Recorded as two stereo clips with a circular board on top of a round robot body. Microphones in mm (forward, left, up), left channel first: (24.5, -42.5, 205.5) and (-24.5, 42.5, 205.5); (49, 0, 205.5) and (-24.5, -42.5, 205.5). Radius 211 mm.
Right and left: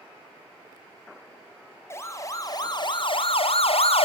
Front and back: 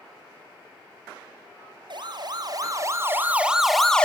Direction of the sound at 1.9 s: 125° right.